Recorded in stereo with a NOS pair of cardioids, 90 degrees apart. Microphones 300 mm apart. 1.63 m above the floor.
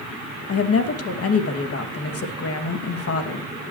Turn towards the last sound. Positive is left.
turn(degrees=50)